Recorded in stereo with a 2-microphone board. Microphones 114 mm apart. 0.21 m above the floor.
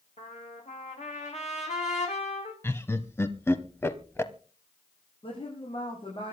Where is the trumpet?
75° left (ahead or behind), 4.5 m.